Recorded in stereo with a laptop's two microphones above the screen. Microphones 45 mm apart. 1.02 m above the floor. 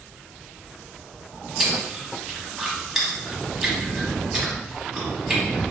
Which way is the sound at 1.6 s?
10° right (ahead or behind).